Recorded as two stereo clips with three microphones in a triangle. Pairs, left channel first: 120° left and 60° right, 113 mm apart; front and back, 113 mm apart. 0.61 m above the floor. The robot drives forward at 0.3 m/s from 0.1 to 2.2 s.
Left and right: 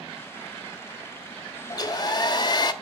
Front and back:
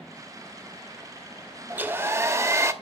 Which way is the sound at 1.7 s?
115° left.